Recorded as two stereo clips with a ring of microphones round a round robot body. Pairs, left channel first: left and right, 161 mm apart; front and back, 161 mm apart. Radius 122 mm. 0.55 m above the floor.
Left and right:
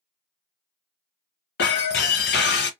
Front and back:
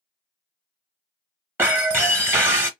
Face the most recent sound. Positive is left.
turn(degrees=105)